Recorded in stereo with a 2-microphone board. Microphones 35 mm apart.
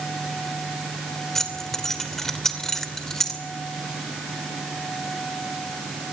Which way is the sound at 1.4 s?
10° left (ahead or behind).